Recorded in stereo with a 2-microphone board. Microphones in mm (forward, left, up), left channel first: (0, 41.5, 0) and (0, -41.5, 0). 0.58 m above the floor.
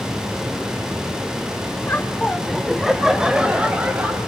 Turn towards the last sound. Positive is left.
turn(degrees=-20)  # may be behind; listen again after turning